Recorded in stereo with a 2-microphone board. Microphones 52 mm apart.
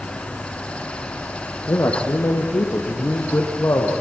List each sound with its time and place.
1.7 s a man speaking: 70° left (ahead or behind), 3.5 m; by 3.9 s 55° left (ahead or behind), 5 m